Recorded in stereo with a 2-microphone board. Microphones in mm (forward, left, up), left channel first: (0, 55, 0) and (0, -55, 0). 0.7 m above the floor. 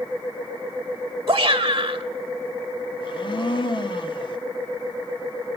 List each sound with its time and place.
1.3 s a shout: 40° right (ahead or behind), 1.2 m
3.0 s a blender: 50° left (ahead or behind), 1.6 m